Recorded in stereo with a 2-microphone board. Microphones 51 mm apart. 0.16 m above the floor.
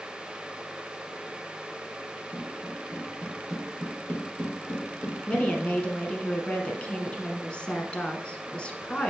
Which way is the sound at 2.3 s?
5° right (ahead or behind).